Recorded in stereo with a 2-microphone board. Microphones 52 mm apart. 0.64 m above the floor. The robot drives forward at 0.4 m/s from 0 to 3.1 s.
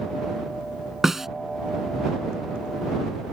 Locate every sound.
1.0 s a snare drum: 5° right (ahead or behind)